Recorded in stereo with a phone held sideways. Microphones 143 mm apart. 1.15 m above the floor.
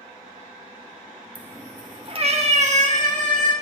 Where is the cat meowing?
10° right (ahead or behind), 0.8 m; by 3.5 s 65° right (ahead or behind), 1.9 m.